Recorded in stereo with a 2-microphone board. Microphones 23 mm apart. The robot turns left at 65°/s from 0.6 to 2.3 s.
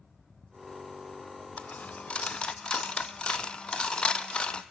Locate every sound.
1.6 s a dropped coin: 80° left, 0.8 m; by 4.6 s 45° left (ahead or behind), 0.8 m